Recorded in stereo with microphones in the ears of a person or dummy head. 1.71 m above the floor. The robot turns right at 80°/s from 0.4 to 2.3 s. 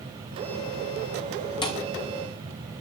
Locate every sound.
1.6 s a thud: 20° left (ahead or behind), 2.5 m; by 1.8 s 10° left (ahead or behind), 2.5 m